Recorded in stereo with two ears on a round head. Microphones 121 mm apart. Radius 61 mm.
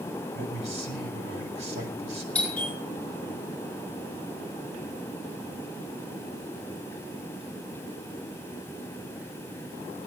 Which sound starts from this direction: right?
A man speaking, at 0.3 s.